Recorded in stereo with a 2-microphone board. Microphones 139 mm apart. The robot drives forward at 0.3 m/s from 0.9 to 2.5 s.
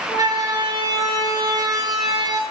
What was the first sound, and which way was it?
A siren, 30° right (ahead or behind).